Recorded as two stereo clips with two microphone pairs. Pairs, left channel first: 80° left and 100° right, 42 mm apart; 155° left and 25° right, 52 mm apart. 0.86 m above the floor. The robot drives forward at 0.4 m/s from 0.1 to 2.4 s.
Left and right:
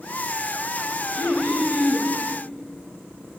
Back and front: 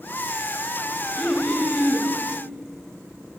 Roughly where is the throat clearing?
Behind.